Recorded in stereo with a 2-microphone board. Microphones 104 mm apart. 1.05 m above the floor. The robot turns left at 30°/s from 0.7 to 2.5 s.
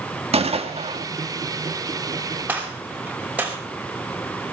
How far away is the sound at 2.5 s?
About 5 m.